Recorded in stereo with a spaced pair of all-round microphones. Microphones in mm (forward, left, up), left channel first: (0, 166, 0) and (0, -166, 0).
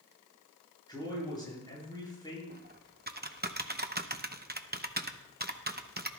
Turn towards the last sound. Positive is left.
turn(degrees=-30)  # may be behind; listen again after turning